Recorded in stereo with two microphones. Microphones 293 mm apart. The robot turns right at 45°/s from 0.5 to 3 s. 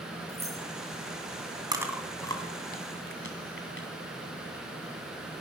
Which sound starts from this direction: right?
Keys jangling, at 0.3 s.